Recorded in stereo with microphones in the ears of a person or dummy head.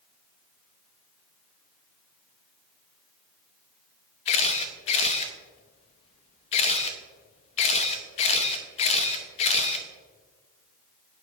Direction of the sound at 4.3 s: 30° left (ahead or behind).